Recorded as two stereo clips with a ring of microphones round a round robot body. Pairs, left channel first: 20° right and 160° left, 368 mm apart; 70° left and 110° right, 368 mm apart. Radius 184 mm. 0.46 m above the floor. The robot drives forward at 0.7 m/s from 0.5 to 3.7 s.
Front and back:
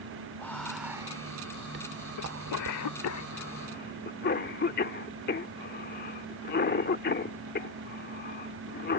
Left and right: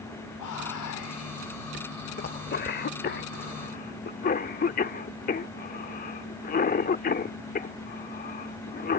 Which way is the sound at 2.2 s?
5° left.